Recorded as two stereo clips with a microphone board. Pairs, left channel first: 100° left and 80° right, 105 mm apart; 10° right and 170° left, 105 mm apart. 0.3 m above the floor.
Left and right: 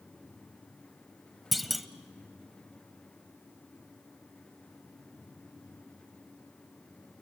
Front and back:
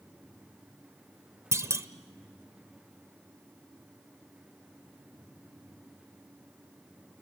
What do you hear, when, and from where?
1.5 s a clunk: 170° right, 1.1 m